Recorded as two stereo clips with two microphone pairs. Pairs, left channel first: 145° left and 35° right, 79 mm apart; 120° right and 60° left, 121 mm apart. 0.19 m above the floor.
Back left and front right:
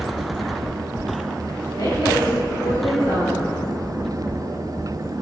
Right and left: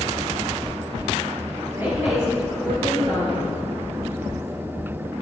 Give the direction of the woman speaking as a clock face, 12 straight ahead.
8 o'clock.